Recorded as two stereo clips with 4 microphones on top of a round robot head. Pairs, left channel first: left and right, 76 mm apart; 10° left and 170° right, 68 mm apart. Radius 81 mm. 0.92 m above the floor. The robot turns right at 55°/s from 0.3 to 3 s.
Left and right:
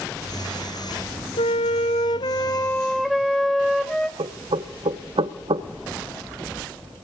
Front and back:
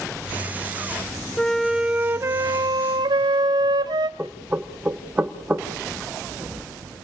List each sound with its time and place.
1.4 s a flute: 90° left, 0.7 m; by 4.1 s straight behind, 0.7 m
4.2 s knocking: 100° right, 1.2 m